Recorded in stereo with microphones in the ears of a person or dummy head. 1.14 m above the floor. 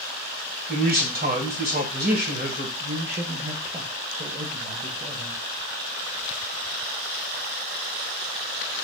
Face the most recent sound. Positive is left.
turn(degrees=-30)  # may be behind; listen again after turning